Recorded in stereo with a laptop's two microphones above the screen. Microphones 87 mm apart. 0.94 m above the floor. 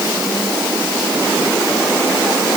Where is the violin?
I don't hear a violin.